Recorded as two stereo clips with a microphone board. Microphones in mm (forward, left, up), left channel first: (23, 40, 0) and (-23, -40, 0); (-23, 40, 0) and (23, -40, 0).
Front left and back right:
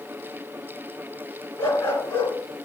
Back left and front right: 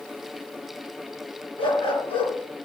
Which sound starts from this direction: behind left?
A dog barking, at 1.6 s.